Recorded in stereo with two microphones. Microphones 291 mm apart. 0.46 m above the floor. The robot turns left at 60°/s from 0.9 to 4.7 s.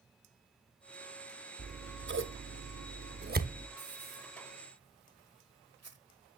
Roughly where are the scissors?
Right.